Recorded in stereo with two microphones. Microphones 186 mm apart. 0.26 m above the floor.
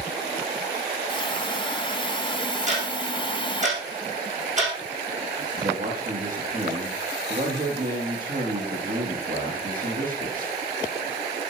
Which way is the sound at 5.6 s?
50° right (ahead or behind).